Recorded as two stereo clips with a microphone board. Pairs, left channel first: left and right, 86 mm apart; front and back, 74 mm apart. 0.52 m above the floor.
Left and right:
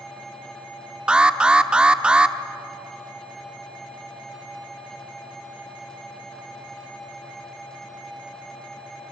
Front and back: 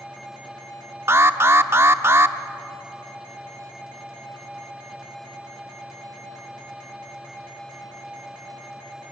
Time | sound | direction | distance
1.1 | an alarm | 160° right | 0.7 m